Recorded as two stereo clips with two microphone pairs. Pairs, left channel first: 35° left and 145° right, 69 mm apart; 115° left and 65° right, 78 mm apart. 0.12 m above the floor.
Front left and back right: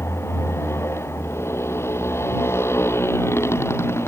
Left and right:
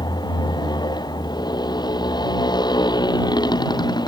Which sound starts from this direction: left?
A motorcycle, at 0.0 s.